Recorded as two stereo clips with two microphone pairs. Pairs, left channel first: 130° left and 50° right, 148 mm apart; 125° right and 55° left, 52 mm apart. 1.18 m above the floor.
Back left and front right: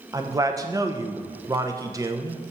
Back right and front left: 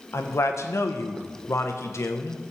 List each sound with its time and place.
0.1 s a man speaking: 120° right, 0.7 m